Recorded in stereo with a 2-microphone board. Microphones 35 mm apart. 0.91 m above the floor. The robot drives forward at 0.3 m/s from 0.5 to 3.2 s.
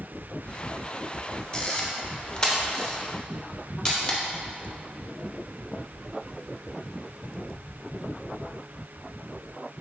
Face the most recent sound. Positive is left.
turn(degrees=15)  # may be behind; listen again after turning